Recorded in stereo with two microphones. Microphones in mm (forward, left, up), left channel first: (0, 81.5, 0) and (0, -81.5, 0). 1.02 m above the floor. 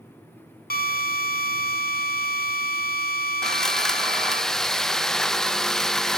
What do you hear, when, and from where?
0.7 s a drill: 70° left (ahead or behind), 1.4 m
3.4 s sawing: 5° left (ahead or behind), 0.7 m